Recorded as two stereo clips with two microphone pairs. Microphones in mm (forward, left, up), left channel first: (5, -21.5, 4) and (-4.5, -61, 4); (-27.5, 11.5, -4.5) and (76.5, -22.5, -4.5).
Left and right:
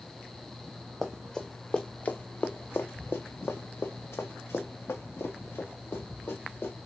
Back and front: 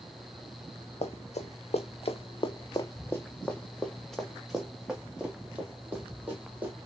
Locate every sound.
1.0 s running footsteps: 170° left, 1.2 m; by 6.7 s 55° left, 3 m